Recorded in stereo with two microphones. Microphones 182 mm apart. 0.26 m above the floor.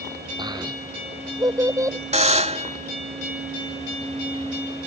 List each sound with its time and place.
0.4 s a child speaking: 20° right (ahead or behind); by 2.0 s 15° right (ahead or behind)
2.1 s a buzzer: 35° right (ahead or behind)